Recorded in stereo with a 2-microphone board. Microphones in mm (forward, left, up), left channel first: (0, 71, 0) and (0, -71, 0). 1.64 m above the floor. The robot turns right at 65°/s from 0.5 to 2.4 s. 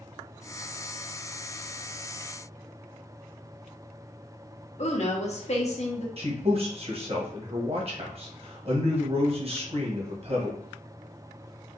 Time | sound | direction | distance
4.8 | a woman speaking | 50° left (ahead or behind) | 1.0 m
6.2 | a man speaking | 45° right (ahead or behind) | 1.1 m